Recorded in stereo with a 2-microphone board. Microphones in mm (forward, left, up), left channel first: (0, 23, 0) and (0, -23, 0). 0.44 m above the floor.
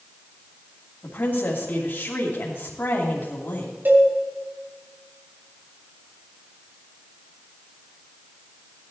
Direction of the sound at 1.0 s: 55° left (ahead or behind).